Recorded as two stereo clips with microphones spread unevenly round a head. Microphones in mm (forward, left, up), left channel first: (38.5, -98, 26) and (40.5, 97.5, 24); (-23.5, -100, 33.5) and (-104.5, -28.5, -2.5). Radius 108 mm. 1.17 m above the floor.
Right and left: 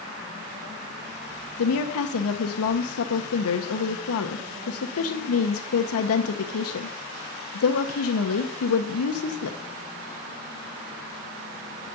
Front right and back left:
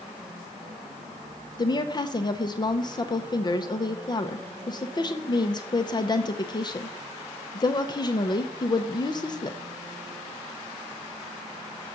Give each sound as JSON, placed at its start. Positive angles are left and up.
{"t": 1.6, "sound": "a woman speaking", "azimuth_deg": -100, "distance_m": 0.7}